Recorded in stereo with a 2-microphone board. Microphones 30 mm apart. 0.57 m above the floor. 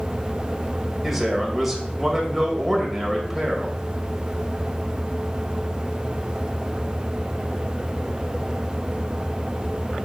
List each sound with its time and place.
1.0 s a man speaking: 5° right (ahead or behind), 2 m